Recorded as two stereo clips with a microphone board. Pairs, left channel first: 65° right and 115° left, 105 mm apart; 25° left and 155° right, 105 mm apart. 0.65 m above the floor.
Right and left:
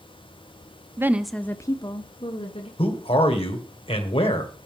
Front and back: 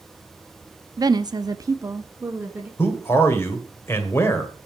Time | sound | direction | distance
1.0 | a woman speaking | 165° left | 0.7 m
2.8 | a man speaking | 45° right | 2 m